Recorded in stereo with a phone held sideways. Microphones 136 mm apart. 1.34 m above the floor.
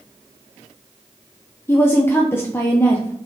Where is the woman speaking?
20° left (ahead or behind), 0.6 m.